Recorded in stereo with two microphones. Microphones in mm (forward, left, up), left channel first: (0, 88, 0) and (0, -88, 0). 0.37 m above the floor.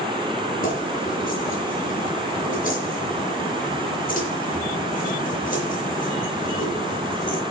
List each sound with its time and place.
0.6 s keys jangling: 50° left (ahead or behind), 5 m